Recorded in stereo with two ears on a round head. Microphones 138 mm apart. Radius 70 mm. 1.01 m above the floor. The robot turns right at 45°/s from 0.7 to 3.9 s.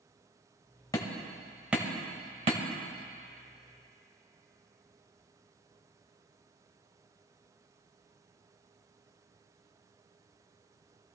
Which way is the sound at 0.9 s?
25° left (ahead or behind).